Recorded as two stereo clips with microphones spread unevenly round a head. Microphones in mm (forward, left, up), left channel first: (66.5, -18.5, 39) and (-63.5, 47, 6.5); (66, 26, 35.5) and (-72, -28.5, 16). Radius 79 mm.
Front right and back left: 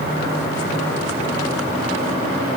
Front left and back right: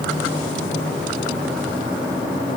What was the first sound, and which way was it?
Only background noise.